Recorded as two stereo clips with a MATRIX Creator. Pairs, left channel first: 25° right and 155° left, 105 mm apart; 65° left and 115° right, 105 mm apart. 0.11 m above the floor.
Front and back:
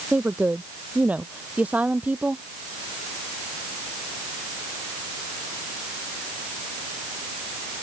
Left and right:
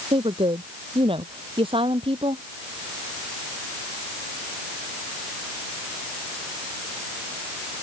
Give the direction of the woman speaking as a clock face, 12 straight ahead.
4 o'clock.